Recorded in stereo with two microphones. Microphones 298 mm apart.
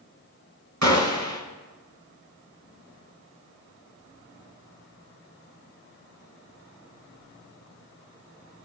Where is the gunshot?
65° right (ahead or behind), 2.0 m.